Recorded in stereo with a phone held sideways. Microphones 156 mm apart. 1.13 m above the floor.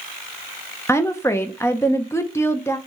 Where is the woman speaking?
15° left (ahead or behind), 0.7 m.